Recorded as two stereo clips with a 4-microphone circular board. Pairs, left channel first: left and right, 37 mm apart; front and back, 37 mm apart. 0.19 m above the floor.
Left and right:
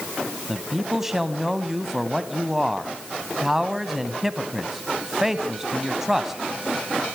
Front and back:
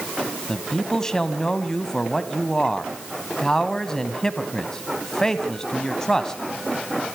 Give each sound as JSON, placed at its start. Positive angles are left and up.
{"t": 0.5, "sound": "a man speaking", "azimuth_deg": -30, "distance_m": 1.1}